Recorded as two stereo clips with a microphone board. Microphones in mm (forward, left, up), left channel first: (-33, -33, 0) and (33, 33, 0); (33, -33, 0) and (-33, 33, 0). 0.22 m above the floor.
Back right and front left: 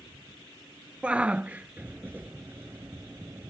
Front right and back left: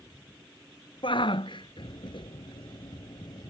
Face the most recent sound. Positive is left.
turn(degrees=-10)